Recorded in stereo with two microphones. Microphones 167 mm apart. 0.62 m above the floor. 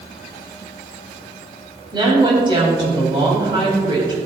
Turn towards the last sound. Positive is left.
turn(degrees=-30)  # may be behind; listen again after turning